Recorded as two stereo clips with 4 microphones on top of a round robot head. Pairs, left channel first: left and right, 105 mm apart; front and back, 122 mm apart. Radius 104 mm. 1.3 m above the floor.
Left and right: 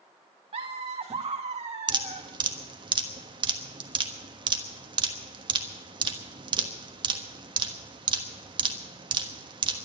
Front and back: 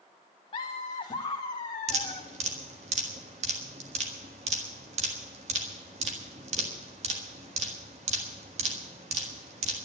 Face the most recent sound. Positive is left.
turn(degrees=-130)